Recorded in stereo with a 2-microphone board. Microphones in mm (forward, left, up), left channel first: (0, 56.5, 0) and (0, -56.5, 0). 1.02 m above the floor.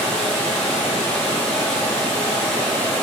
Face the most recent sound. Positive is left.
turn(degrees=10)  # may be behind; listen again after turning